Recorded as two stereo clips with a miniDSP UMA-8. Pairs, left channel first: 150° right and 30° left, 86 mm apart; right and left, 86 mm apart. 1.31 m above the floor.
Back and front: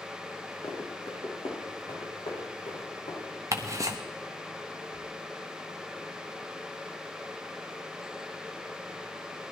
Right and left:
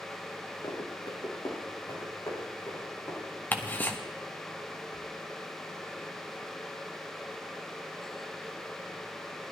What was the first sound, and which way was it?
Running footsteps, 120° right.